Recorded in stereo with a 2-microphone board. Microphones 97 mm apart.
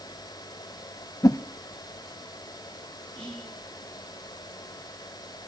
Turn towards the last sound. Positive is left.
turn(degrees=10)  # may be behind; listen again after turning